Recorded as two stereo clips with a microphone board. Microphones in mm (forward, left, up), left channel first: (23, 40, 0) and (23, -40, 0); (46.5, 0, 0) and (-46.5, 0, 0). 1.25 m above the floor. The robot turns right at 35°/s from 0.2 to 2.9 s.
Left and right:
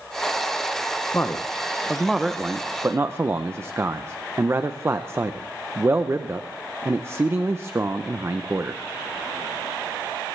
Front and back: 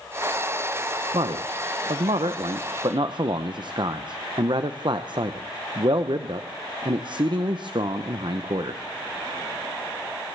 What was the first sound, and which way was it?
A man speaking, 150° left.